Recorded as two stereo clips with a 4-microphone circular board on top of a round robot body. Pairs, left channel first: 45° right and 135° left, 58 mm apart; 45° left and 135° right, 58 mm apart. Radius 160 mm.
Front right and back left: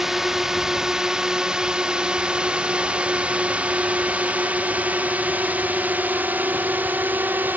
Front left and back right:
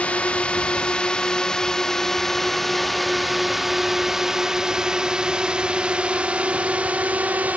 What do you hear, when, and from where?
0.0 s a drone: 60° left; by 7.6 s 175° left